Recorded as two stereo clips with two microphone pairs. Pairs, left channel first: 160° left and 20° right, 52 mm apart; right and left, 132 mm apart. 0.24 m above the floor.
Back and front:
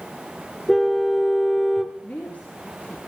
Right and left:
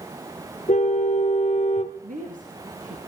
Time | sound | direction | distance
0.7 | a car horn | 110° right | 2 m
2.0 | a woman speaking | 100° left | 4 m